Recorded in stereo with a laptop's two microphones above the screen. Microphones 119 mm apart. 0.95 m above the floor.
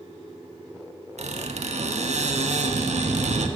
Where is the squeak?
70° right (ahead or behind), 0.7 m.